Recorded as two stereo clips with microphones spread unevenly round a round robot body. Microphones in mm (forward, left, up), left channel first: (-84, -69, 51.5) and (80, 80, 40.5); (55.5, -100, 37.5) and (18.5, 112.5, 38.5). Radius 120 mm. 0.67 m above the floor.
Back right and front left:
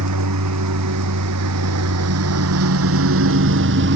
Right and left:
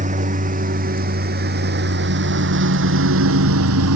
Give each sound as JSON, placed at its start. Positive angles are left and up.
{"t": 0.0, "sound": "a lawn mower", "azimuth_deg": 45}